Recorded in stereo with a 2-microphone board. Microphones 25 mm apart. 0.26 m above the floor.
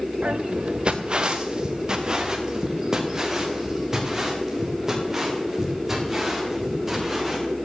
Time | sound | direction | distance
0.2 | footsteps | 55° right (ahead or behind) | 1.2 m